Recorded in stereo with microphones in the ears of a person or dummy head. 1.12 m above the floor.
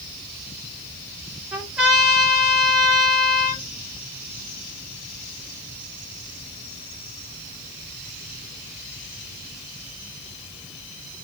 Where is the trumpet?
5° right (ahead or behind), 1.7 m.